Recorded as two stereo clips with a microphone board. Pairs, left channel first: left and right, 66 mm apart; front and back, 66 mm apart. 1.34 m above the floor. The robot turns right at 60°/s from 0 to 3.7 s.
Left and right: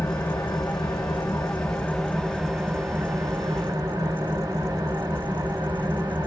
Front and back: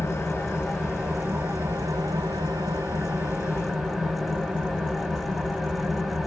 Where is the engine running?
45° left, 1.0 m; by 6.3 s 90° right, 1.0 m.